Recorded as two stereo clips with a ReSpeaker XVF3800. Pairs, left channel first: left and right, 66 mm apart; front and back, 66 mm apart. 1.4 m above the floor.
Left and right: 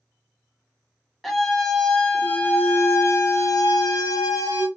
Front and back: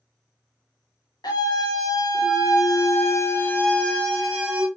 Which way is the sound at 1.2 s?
Straight ahead.